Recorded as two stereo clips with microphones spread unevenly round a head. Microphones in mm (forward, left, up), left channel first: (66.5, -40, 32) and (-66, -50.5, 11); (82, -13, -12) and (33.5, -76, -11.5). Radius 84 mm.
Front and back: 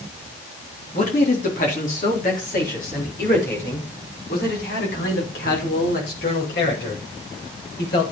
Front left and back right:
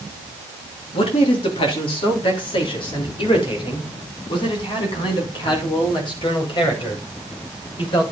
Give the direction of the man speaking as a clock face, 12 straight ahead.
10 o'clock.